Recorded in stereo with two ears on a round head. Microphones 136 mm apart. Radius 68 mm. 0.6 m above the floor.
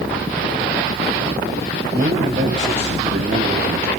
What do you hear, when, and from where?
1.9 s a man speaking: 40° right (ahead or behind), 3 m; by 3.9 s 65° right (ahead or behind), 2.5 m